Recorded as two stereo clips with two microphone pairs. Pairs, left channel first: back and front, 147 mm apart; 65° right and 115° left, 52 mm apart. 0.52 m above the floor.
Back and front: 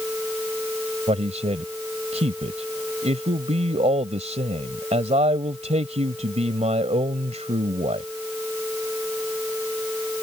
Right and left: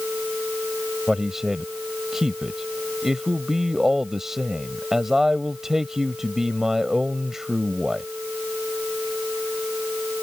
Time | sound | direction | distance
1.1 | a man speaking | 35° left | ?